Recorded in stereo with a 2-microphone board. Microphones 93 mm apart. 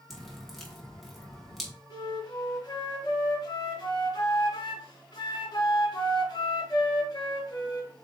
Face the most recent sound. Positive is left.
turn(degrees=50)  # may be behind; listen again after turning